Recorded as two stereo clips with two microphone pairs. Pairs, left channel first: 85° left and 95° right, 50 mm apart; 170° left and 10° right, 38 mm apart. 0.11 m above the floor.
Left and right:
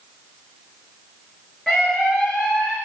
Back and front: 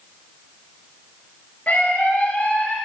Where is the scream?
Straight behind, 1.6 m.